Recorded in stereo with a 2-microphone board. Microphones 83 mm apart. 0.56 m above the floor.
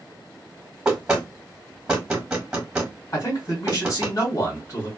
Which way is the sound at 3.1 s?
50° left (ahead or behind).